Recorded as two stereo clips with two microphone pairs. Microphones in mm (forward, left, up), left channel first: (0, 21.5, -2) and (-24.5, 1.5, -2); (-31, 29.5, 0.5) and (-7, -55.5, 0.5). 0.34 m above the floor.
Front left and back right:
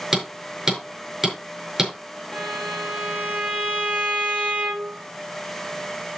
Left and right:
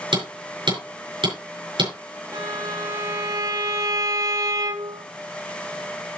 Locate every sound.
0.1 s hammering: 65° right, 5.5 m
2.3 s a violin: 30° right, 3.5 m